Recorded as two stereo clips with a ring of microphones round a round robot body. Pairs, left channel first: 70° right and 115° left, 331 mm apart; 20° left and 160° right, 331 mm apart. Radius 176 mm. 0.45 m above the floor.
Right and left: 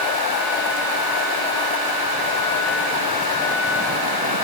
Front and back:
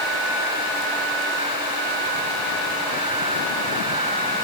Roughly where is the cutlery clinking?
I don't hear cutlery clinking.